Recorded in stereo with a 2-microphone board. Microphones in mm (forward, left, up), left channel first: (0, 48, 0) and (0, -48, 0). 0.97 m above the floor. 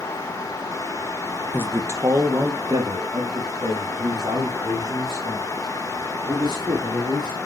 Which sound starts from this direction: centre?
A man speaking, at 1.5 s.